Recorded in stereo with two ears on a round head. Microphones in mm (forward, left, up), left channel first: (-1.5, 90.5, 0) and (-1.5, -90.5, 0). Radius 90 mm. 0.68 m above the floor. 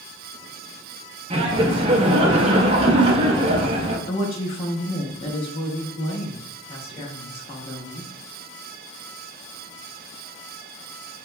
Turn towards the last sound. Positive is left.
turn(degrees=30)  # may be behind; listen again after turning